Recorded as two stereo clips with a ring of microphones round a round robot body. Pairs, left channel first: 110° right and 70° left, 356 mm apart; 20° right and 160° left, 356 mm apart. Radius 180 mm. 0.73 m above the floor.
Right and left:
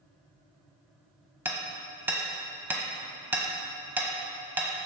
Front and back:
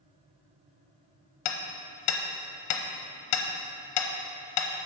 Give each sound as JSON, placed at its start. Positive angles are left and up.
{"t": 1.4, "sound": "hammering", "azimuth_deg": -15, "distance_m": 0.9}